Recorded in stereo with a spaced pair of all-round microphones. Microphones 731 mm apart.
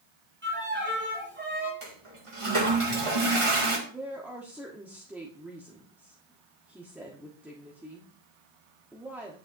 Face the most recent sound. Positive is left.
turn(degrees=0)  # may be behind; listen again after turning